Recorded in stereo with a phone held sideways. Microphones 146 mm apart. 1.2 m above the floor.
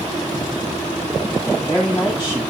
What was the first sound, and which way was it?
A man speaking, 35° left (ahead or behind).